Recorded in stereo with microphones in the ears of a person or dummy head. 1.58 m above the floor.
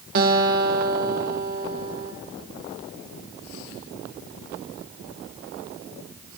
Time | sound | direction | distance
0.1 | a guitar | 55° right (ahead or behind) | 1.1 m